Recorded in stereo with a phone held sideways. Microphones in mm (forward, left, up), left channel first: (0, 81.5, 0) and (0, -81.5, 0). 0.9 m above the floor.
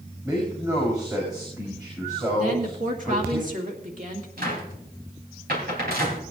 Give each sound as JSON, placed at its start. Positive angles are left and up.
{"t": 0.2, "sound": "a man speaking", "side_deg": -20, "distance_m": 5.0}
{"t": 2.4, "sound": "a woman speaking", "side_deg": -50, "distance_m": 2.0}
{"t": 4.4, "sound": "a cupboard door", "side_deg": -70, "distance_m": 3.5}